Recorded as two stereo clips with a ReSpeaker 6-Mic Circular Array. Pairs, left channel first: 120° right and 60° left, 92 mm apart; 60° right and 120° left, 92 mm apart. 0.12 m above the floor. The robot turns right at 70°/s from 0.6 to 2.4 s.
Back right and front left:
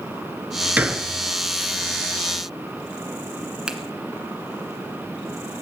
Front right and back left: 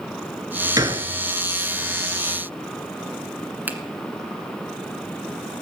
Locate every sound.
0.8 s a gunshot: 125° left, 1.1 m; by 1.1 s 145° left, 1.1 m
3.7 s a finger snap: 120° left, 1.5 m